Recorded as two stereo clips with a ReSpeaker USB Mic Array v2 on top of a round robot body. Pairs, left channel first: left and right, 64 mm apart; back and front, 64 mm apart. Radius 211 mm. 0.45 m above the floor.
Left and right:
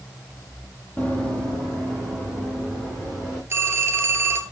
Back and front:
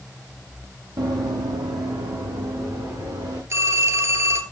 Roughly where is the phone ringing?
Ahead right.